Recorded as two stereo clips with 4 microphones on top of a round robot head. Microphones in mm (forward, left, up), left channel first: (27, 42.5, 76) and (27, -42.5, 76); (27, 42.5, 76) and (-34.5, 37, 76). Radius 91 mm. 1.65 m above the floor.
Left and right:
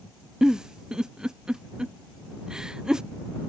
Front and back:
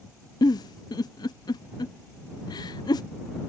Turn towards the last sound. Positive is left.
turn(degrees=-5)